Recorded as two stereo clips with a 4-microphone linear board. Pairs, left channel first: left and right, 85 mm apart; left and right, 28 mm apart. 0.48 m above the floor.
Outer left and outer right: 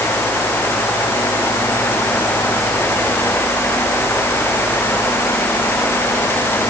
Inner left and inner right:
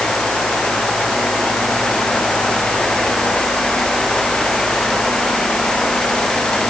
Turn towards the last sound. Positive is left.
No sound to turn to.